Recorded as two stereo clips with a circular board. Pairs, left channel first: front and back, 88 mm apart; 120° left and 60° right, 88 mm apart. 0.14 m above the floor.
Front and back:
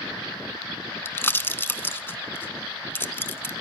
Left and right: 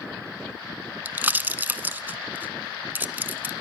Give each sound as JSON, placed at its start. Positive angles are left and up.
{"t": 1.1, "sound": "a pop", "azimuth_deg": -20, "distance_m": 0.6}